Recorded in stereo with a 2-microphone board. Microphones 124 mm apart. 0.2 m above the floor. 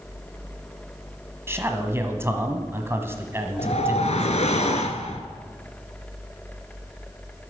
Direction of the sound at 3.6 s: 70° left (ahead or behind).